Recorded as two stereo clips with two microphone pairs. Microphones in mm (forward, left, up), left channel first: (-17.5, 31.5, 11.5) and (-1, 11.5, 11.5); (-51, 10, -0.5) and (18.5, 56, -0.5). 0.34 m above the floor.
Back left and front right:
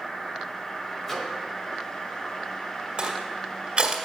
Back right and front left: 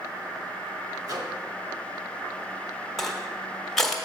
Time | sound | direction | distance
1.0 | a microwave | 55° left | 1.3 m
3.0 | crushing | 60° right | 1.4 m